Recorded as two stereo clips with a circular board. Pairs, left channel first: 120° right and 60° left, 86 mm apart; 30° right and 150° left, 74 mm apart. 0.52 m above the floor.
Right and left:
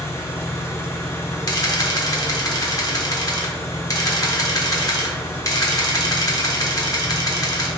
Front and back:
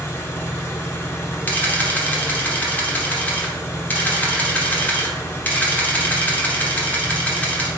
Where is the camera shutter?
90° right, 1.0 m.